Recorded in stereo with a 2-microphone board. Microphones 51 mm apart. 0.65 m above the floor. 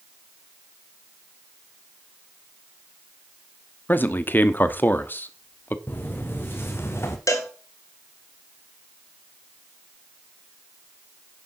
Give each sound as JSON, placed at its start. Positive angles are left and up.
{"t": 3.9, "sound": "a man speaking", "side_deg": 40, "distance_m": 1.0}
{"t": 5.9, "sound": "footsteps", "side_deg": 35, "distance_m": 2.5}
{"t": 7.3, "sound": "a cowbell", "side_deg": 75, "distance_m": 2.0}